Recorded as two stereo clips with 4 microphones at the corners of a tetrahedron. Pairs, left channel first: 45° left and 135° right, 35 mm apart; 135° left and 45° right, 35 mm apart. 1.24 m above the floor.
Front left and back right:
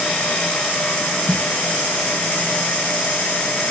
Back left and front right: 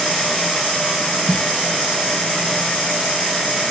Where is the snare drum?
60° left.